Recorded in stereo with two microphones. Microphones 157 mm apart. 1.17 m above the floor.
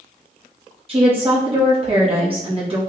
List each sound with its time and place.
0.9 s a woman speaking: 35° right (ahead or behind), 1.6 m